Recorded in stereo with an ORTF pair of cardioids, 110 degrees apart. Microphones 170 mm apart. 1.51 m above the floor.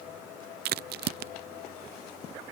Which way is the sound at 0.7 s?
65° right.